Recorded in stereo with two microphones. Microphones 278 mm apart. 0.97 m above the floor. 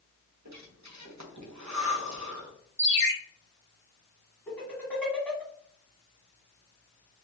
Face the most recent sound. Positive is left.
turn(degrees=5)  # may be behind; listen again after turning